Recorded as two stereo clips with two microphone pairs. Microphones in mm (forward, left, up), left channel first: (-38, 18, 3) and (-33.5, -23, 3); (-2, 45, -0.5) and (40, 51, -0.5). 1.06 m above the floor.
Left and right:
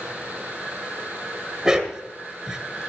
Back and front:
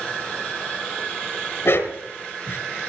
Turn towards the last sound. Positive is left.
turn(degrees=-160)